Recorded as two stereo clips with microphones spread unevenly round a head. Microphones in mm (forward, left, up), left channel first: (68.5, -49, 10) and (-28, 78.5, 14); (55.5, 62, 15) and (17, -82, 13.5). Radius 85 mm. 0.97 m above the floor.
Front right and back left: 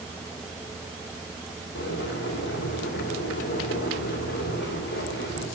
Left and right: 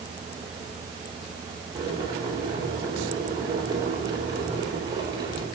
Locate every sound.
1.8 s boiling: 45° right, 4.5 m